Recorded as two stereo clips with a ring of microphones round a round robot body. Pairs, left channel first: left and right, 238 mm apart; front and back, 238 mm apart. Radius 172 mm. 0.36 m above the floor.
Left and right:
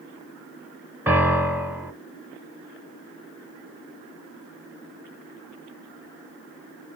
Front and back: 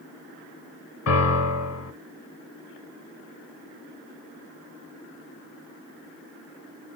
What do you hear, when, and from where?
1.1 s a piano: 5° right, 0.8 m